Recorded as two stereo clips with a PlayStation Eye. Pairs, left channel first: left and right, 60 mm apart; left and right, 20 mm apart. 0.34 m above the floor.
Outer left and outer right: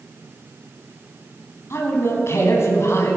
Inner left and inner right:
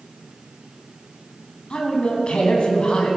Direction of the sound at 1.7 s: 50° left (ahead or behind).